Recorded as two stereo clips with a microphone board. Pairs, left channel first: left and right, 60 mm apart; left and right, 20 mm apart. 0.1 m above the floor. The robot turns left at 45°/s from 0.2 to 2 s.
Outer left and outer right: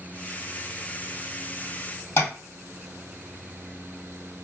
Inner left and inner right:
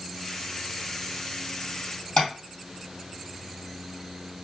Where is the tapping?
45° left (ahead or behind), 2.5 m.